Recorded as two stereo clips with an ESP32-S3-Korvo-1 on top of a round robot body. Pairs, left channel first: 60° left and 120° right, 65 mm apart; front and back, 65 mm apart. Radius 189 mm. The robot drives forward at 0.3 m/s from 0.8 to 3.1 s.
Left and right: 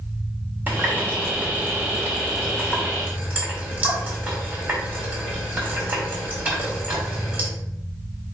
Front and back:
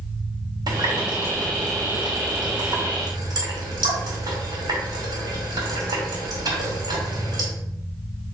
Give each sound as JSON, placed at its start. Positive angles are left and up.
{"t": 0.7, "sound": "a running tap", "azimuth_deg": 170, "distance_m": 1.8}